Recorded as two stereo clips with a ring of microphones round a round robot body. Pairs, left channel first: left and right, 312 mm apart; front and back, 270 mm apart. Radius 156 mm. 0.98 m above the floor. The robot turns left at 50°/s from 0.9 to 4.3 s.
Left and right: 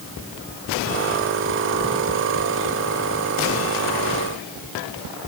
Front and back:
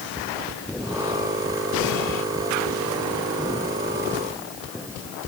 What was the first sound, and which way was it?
Only background noise.